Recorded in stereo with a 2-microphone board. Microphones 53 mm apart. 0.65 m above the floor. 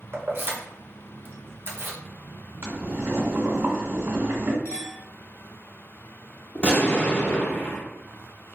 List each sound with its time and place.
0.1 s keys jangling: 45° right (ahead or behind), 0.7 m
2.6 s boiling: 65° right (ahead or behind), 1.2 m
4.7 s a clink: 85° left, 1.5 m
6.5 s an explosion: 30° left (ahead or behind), 0.9 m